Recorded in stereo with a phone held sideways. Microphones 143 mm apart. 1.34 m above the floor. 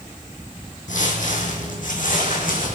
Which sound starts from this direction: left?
Footsteps, at 0.9 s.